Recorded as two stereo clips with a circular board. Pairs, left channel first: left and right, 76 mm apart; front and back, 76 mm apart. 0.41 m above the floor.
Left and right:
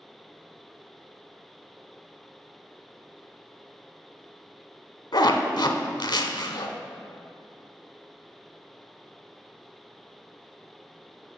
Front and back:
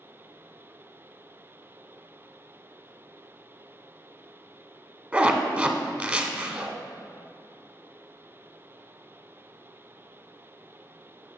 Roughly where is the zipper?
Left.